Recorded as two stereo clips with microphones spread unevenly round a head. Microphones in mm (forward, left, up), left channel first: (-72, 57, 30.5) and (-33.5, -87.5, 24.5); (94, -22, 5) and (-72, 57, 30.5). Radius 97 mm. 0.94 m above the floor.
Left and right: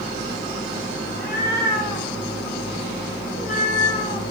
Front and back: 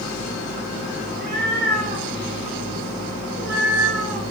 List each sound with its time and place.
1.1 s a cat meowing: 120° left, 4 m; by 4.2 s 145° left, 3.5 m